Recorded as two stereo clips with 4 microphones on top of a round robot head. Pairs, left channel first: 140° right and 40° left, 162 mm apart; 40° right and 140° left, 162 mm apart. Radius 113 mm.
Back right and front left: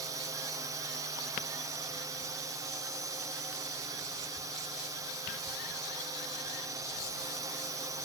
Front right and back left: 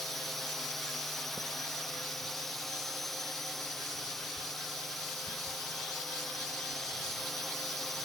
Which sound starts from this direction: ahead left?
A drone, at 0.0 s.